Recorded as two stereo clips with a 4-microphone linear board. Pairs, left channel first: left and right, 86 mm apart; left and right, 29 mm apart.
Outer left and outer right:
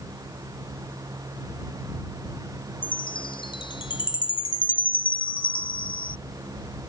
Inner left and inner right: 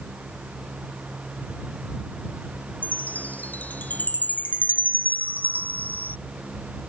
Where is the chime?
70° left (ahead or behind).